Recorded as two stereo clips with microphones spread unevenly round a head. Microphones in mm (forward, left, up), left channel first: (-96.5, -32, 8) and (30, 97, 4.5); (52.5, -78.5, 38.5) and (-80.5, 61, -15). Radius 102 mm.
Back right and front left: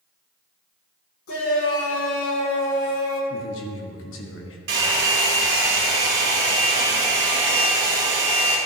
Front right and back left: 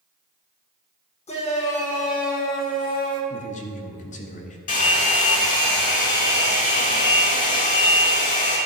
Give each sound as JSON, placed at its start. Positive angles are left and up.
{"t": 1.3, "sound": "a shout", "azimuth_deg": -105, "distance_m": 3.0}
{"t": 3.3, "sound": "a man speaking", "azimuth_deg": -105, "distance_m": 1.5}
{"t": 4.7, "sound": "a hair dryer", "azimuth_deg": 5, "distance_m": 3.0}